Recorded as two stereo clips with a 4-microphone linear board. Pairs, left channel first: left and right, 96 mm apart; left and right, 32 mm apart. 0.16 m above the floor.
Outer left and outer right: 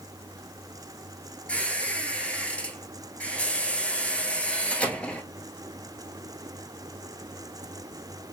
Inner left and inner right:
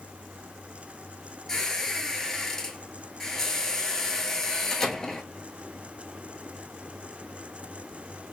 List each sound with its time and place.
1.5 s a squeak: 15° left (ahead or behind), 0.8 m